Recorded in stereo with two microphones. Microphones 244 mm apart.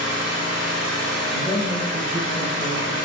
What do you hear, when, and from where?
0.0 s an engine running: 70° left (ahead or behind), 1.6 m
1.3 s a man speaking: centre (ahead or behind), 1.5 m